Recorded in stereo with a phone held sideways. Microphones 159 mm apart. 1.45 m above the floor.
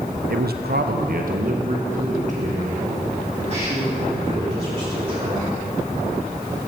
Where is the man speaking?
70° right (ahead or behind), 0.7 m; by 5.7 s 40° right (ahead or behind), 5.5 m.